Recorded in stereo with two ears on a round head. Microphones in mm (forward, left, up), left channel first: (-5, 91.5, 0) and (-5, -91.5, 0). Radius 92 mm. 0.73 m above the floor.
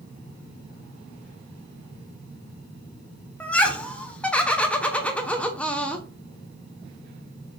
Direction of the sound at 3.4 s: 5° left (ahead or behind).